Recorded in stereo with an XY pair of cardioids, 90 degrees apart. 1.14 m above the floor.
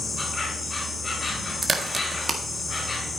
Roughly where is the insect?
Ahead left.